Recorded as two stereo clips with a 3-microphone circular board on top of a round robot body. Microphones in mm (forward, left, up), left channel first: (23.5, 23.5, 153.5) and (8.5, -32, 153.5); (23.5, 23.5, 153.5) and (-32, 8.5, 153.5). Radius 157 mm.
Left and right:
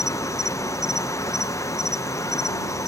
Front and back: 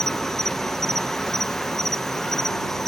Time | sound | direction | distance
0.0 | an insect | 100° left | ?